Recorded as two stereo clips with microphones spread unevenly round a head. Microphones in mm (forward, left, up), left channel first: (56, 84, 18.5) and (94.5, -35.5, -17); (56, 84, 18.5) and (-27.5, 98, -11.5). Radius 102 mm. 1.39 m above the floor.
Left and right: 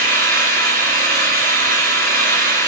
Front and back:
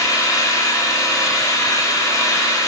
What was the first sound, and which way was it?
An engine running, 100° right.